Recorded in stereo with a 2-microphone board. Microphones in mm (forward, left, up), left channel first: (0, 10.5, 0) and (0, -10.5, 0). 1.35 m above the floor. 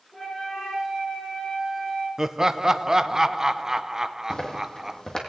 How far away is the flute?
About 8 m.